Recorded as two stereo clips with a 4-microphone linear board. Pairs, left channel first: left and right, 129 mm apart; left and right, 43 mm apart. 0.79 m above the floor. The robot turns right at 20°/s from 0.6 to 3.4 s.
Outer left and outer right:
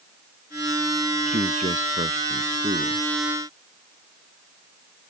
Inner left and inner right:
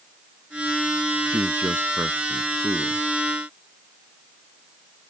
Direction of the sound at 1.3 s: 100° right.